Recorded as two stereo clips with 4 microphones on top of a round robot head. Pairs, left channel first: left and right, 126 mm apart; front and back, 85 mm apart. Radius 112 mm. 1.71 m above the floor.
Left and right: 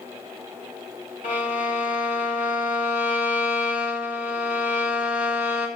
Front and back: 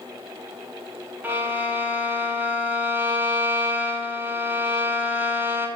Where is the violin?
120° left, 5.5 m.